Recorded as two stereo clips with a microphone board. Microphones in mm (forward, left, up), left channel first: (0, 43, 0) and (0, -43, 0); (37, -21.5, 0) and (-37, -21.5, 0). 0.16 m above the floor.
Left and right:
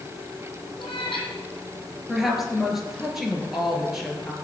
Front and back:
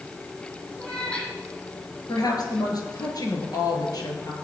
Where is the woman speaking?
Straight ahead, 3 m.